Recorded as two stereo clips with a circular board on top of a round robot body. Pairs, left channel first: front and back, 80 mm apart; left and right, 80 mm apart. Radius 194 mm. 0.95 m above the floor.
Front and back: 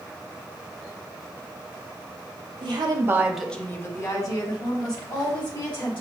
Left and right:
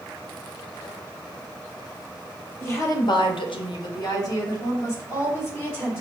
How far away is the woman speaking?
About 0.9 m.